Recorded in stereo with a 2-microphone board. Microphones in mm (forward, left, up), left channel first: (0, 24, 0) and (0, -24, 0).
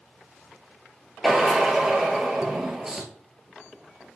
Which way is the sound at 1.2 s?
10° right (ahead or behind).